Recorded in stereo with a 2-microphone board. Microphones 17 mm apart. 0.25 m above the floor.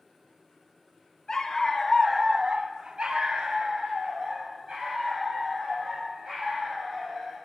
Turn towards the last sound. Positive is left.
turn(degrees=-60)  # may be behind; listen again after turning